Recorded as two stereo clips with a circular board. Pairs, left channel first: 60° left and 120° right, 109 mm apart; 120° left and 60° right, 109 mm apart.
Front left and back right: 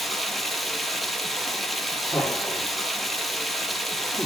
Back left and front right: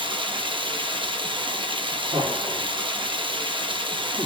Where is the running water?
30° right, 1.4 m.